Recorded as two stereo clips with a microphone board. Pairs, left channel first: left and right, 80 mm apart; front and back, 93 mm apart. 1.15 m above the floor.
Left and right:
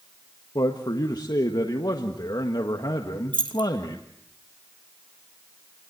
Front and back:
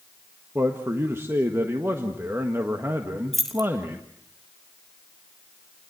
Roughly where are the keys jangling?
Right.